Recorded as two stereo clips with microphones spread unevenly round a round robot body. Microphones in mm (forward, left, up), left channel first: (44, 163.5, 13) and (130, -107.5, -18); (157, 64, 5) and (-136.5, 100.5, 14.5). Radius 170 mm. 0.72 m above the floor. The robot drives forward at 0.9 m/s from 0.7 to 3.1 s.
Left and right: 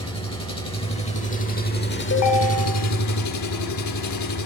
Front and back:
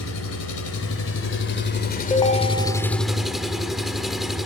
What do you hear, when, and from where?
0.0 s an engine running: 35° left, 3 m; by 4.5 s 85° left, 1.7 m
2.1 s a ringtone: 65° left, 2.5 m; by 2.9 s 85° left, 2 m